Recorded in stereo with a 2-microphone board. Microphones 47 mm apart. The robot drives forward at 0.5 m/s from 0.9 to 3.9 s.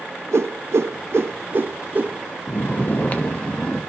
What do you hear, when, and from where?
0.3 s a whoosh: 65° right (ahead or behind), 0.5 m; by 2.2 s 30° right (ahead or behind), 0.9 m
2.5 s snoring: 50° left (ahead or behind), 0.6 m; by 3.8 s 25° left (ahead or behind), 1.1 m